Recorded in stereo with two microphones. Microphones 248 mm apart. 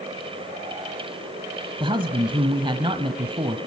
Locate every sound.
1.8 s a man speaking: 20° right (ahead or behind), 1.2 m